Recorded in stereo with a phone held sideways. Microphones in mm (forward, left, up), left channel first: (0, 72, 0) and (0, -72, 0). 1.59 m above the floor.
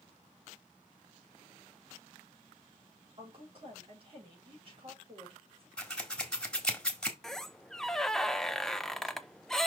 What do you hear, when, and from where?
3.2 s a woman speaking: 40° right (ahead or behind), 4.5 m
5.8 s scissors: 5° left (ahead or behind), 1.5 m
7.2 s a squeak: 5° left (ahead or behind), 0.5 m